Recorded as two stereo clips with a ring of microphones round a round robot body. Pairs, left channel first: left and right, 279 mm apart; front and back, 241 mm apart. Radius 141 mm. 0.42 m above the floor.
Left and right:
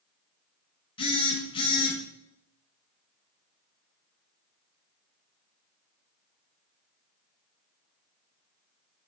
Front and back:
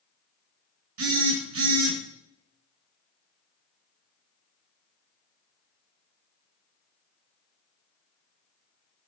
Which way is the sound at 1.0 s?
160° left.